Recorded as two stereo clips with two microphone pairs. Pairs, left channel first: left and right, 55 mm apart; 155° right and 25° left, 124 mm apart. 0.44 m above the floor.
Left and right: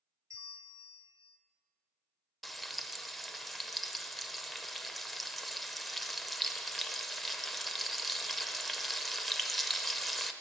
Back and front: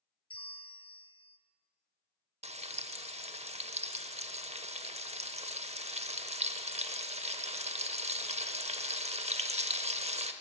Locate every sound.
0.3 s a bell: 105° right, 0.6 m
2.4 s frying: 5° left, 0.5 m